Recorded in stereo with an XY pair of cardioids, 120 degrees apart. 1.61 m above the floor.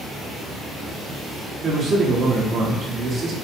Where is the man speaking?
55° right, 1.8 m.